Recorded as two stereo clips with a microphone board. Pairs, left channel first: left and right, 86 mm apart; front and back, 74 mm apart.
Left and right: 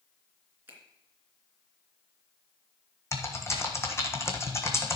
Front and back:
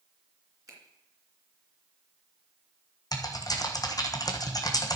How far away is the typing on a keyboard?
About 1.6 m.